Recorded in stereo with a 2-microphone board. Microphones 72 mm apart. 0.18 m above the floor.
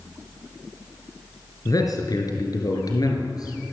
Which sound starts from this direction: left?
A man speaking, at 1.6 s.